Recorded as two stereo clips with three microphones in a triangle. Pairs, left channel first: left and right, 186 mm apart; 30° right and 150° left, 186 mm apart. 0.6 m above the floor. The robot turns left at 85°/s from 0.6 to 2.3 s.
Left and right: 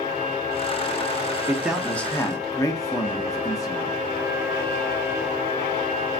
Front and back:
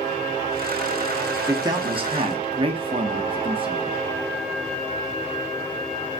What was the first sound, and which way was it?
A man speaking, 150° right.